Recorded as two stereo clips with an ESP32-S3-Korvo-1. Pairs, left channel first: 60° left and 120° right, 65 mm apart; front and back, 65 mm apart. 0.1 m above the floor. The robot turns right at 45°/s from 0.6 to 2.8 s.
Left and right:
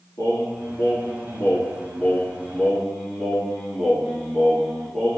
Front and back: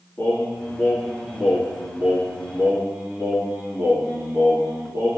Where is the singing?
50° left, 1.9 m; by 5.2 s 150° left, 1.9 m.